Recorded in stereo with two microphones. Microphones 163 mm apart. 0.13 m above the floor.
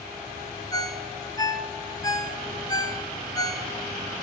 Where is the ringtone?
25° left (ahead or behind), 0.6 m.